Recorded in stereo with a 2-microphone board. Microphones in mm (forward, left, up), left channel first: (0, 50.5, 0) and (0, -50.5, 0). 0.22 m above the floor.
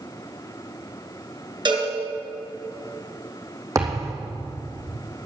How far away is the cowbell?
About 3 m.